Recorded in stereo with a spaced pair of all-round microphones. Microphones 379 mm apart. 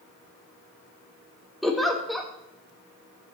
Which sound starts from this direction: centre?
A giggle, at 1.6 s.